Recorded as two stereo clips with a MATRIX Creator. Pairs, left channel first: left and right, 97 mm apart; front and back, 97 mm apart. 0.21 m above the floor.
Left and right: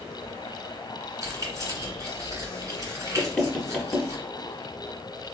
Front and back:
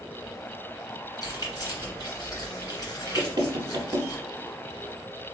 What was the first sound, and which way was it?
Keys jangling, 40° right.